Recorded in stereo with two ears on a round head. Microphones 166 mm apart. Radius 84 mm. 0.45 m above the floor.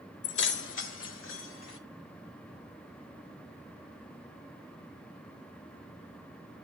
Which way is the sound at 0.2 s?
65° left (ahead or behind).